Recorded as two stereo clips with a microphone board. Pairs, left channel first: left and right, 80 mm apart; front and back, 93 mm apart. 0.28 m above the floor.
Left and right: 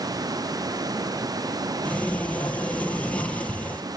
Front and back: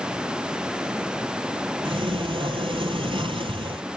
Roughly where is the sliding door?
Behind.